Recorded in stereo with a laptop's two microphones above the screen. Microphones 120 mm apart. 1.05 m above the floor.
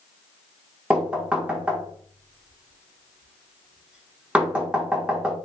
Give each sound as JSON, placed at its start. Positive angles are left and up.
{"t": 0.9, "sound": "knocking", "side_deg": -10, "distance_m": 0.7}